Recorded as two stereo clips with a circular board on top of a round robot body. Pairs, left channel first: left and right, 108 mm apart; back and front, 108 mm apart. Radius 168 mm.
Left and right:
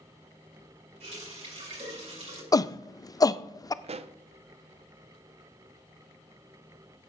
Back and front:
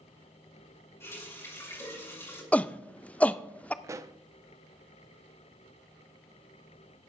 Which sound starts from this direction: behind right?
A running tap, at 1.0 s.